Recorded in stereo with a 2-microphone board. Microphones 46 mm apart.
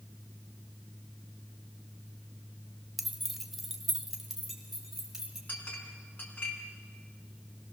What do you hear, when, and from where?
3.0 s keys jangling: 5° right (ahead or behind), 0.8 m
5.5 s a clink: 50° left (ahead or behind), 3 m